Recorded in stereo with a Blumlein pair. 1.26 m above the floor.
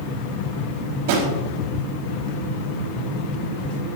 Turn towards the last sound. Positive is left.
turn(degrees=-50)